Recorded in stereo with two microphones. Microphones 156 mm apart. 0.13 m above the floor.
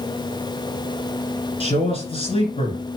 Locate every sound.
1.6 s a man speaking: 40° left (ahead or behind), 2.0 m